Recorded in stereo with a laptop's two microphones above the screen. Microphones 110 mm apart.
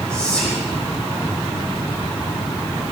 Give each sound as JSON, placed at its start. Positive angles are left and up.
{"t": 0.1, "sound": "whispering", "side_deg": 0, "distance_m": 5.0}